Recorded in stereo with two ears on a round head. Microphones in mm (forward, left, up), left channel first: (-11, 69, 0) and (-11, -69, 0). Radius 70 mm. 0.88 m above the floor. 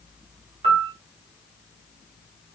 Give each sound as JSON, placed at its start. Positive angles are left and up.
{"t": 0.6, "sound": "a piano", "side_deg": -35, "distance_m": 1.2}